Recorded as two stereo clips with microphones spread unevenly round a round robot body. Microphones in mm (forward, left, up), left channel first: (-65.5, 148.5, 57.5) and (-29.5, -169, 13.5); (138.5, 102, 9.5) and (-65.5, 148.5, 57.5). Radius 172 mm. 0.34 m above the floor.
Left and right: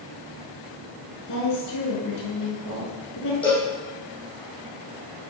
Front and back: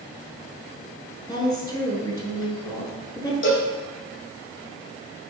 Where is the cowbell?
10° left, 7 m.